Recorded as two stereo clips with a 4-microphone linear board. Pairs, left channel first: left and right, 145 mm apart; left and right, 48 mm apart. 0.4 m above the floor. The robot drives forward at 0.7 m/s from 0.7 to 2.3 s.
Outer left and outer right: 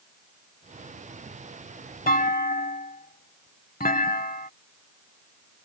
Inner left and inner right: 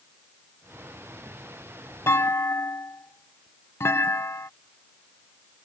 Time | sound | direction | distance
2.1 | a clunk | 85° left | ?